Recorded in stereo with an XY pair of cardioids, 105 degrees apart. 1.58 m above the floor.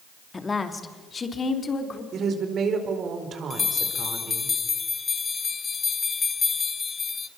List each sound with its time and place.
0.3 s a woman speaking: 25° left, 2.5 m; by 2.0 s 40° left, 4 m
2.1 s a woman speaking: 55° right, 4.5 m
3.5 s a bell: 35° left, 1.3 m